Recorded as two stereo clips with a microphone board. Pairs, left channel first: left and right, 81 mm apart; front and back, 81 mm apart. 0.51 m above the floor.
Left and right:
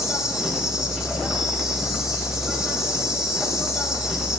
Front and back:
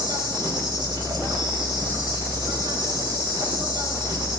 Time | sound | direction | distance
0.0 | an insect | 170° right | 4 m